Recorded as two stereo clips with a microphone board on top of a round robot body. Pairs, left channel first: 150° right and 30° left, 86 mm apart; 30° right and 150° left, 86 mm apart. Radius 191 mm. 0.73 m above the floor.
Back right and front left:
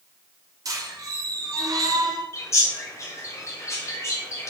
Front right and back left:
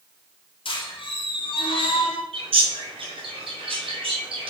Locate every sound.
0.7 s a squeak: 20° right, 1.4 m
2.3 s a bird: 150° left, 1.8 m